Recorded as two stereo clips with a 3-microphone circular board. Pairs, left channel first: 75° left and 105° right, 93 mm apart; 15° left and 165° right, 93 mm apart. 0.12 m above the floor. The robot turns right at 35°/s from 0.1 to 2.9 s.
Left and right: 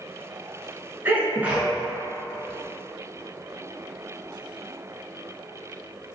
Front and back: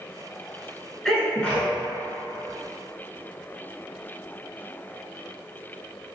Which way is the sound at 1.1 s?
65° right.